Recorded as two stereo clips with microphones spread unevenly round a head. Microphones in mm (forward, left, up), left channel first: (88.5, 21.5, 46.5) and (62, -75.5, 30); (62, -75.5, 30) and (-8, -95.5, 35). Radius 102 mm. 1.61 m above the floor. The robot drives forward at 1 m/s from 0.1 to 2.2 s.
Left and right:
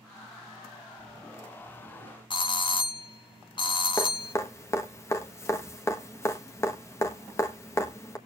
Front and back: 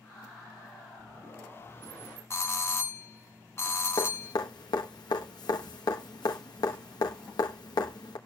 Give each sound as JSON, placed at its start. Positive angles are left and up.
{"t": 2.3, "sound": "a doorbell", "azimuth_deg": 50, "distance_m": 0.9}
{"t": 4.0, "sound": "dripping", "azimuth_deg": 30, "distance_m": 1.2}